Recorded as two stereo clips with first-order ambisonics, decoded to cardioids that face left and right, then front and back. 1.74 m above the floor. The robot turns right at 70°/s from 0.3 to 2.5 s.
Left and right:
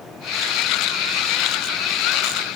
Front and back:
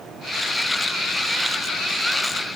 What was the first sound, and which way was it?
Only background noise.